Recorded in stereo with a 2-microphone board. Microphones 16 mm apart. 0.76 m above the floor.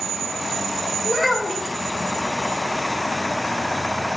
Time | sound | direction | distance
1.1 | a child speaking | 25° right (ahead or behind) | 0.5 m